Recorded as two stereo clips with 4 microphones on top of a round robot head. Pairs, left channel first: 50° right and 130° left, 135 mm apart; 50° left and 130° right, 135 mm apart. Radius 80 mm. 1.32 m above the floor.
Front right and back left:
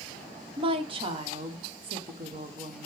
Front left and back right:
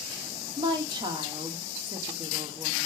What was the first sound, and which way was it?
A woman speaking, 175° left.